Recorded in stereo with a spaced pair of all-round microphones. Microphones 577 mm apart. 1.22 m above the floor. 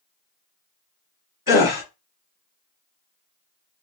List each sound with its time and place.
1.5 s a gasp: 35° left (ahead or behind), 1.0 m